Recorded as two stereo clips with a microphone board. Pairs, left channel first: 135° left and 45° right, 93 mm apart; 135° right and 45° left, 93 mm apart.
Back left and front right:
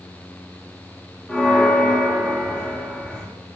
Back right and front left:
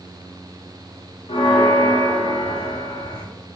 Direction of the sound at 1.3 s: 145° right.